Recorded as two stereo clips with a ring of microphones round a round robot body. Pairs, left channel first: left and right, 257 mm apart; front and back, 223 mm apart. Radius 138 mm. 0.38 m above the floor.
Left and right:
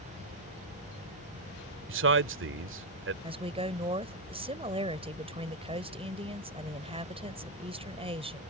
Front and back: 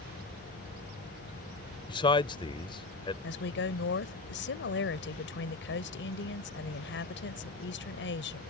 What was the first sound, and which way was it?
A man speaking, 65° right.